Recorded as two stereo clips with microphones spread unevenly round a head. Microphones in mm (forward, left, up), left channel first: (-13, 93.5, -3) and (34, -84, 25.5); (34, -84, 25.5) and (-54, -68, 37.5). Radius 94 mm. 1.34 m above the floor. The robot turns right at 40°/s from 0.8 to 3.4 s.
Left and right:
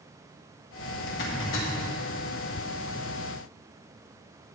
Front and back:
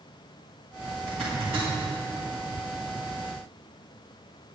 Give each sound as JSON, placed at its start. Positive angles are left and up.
{"t": 1.1, "sound": "a zipper", "azimuth_deg": 70, "distance_m": 1.9}